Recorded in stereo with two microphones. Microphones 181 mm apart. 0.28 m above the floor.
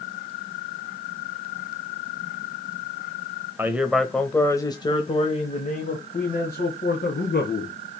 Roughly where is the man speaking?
Centre.